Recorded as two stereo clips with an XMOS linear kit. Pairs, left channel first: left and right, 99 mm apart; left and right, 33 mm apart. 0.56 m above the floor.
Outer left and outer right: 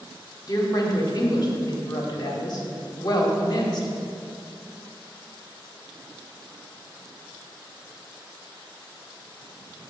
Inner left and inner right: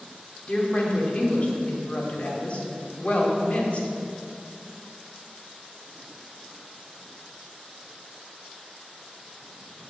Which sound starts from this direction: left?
A woman speaking, at 0.5 s.